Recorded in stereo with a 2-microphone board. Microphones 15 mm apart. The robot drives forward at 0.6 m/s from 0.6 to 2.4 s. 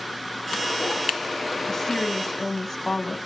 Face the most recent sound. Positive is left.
turn(degrees=25)  # may be behind; listen again after turning